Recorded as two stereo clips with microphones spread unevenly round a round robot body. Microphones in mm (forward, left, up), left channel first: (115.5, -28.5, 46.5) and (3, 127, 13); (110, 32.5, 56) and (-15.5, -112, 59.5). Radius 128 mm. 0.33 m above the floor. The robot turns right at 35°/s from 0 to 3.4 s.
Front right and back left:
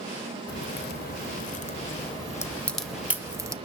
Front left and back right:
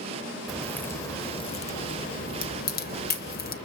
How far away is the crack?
About 0.9 m.